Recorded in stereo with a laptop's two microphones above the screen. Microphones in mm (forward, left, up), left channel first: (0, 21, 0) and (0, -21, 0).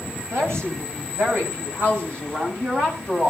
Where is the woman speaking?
75° right (ahead or behind), 6.5 m; by 3.3 s 55° right (ahead or behind), 7 m.